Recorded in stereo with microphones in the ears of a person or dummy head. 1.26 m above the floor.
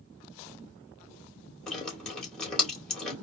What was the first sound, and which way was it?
Dripping, centre (ahead or behind).